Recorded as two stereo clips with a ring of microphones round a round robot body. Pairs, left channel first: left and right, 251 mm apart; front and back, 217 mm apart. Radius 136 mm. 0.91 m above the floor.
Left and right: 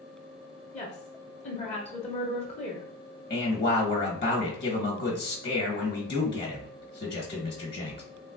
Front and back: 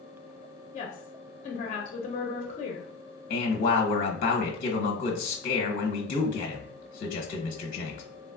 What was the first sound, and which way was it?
A woman speaking, 35° left.